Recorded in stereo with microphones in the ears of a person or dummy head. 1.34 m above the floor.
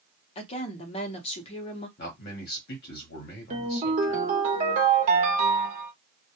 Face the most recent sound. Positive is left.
turn(degrees=-35)  # may be behind; listen again after turning